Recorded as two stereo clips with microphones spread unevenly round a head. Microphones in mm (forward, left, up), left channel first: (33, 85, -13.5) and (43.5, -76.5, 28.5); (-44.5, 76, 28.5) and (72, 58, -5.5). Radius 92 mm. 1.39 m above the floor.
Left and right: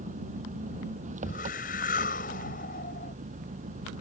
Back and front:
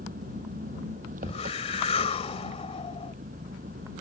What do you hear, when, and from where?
0.0 s an engine running: 45° right
1.2 s a whoosh: 145° left